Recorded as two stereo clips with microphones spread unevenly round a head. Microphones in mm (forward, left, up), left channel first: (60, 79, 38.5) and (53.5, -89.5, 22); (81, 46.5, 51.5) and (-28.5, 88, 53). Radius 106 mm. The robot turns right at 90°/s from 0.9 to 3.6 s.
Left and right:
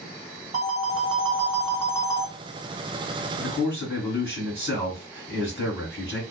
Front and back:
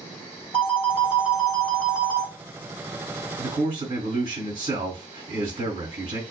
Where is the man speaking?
150° left, 1.5 m; by 6.2 s 170° left, 1.5 m.